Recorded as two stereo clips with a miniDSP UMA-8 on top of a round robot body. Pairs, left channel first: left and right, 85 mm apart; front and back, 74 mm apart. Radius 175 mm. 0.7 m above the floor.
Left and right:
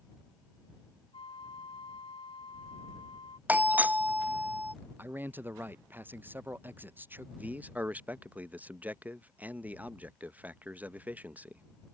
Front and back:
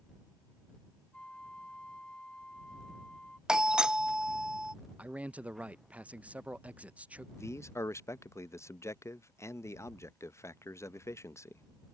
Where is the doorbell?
115° right.